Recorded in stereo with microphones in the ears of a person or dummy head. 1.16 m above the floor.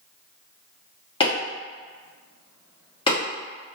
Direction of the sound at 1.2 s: 25° left (ahead or behind).